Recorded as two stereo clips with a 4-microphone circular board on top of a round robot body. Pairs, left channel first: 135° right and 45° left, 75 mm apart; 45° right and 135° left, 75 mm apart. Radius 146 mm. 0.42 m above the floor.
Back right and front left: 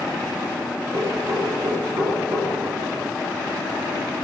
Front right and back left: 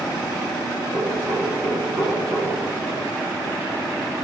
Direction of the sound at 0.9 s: 80° left.